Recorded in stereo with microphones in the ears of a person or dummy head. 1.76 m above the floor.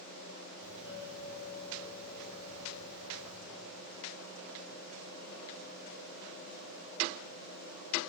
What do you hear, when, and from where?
0.6 s a doorbell: 10° right (ahead or behind), 8.5 m